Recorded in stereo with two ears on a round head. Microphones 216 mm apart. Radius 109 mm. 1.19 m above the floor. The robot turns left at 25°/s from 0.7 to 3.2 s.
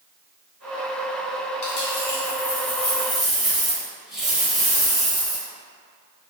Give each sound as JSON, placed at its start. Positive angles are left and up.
{"t": 1.6, "sound": "a dropped coin", "azimuth_deg": 40, "distance_m": 1.3}